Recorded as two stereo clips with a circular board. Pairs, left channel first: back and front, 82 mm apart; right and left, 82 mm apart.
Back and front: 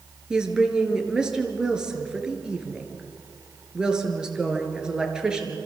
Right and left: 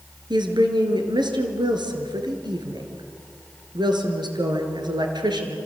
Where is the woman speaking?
80° left, 4 m.